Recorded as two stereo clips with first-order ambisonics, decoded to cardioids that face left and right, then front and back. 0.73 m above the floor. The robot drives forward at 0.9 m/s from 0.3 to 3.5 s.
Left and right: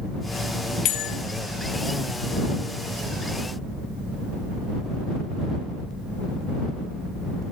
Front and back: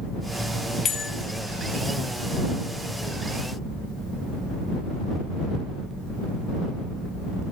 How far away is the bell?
About 1.0 m.